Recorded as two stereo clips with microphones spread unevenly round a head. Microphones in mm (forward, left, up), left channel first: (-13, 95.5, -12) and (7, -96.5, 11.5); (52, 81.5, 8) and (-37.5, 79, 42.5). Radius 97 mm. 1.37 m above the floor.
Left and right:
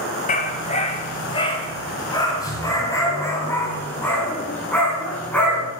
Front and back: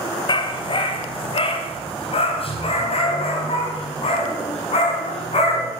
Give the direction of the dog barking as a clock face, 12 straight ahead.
11 o'clock.